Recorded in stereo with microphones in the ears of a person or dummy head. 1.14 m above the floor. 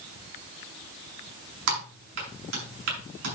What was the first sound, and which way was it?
Typing on a keyboard, 75° right (ahead or behind).